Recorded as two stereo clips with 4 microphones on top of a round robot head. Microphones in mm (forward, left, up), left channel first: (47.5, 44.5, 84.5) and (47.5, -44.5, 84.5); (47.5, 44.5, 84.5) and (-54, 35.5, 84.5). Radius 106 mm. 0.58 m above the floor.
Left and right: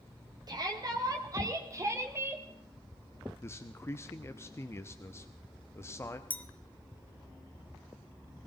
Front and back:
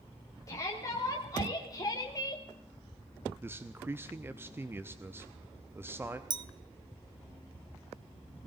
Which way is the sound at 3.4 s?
130° left.